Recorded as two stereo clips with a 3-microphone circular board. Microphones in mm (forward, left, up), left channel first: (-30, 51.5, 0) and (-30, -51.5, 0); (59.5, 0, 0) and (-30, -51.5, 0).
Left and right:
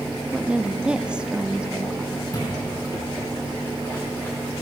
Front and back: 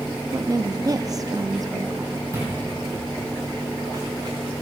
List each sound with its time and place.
0.3 s a woman speaking: 165° right, 0.6 m
2.3 s footsteps: 150° left, 4 m; by 4.4 s 160° left, 4.5 m